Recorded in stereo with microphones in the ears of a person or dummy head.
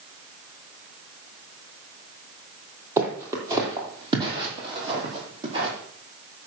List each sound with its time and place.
3.0 s footsteps: 15° right (ahead or behind), 3 m; by 5.7 s 40° right (ahead or behind), 5 m